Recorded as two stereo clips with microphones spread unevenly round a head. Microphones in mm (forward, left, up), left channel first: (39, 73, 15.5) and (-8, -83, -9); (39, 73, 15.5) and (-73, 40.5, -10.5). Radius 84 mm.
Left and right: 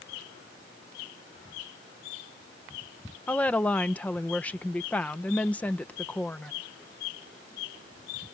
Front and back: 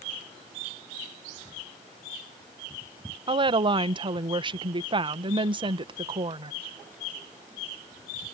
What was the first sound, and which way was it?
A woman speaking, 160° left.